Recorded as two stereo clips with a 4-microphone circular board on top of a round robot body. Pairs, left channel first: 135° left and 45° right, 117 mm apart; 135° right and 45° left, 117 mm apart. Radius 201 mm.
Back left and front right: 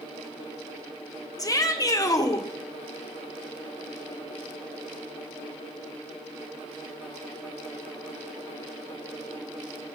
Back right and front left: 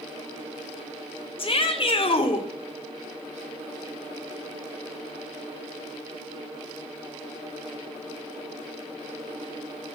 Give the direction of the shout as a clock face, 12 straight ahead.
6 o'clock.